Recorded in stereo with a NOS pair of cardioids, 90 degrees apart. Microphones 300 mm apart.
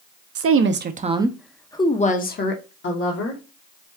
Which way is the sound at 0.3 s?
50° right.